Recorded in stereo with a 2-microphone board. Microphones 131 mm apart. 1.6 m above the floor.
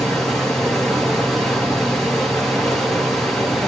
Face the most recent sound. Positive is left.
turn(degrees=0)  # may be behind; listen again after turning